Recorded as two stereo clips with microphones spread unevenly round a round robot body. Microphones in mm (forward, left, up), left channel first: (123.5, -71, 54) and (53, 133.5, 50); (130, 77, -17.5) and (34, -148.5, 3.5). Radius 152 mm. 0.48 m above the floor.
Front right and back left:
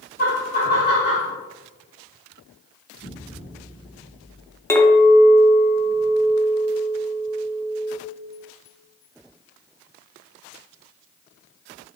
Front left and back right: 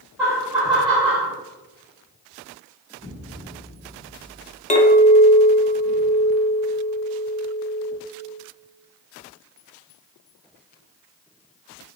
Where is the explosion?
10° right, 1.5 m.